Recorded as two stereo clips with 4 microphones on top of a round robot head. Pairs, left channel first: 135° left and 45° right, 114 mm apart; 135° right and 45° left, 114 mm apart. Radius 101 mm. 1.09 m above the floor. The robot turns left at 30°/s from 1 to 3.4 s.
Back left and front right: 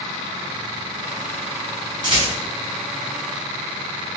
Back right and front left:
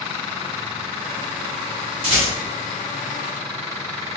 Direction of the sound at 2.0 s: 10° left.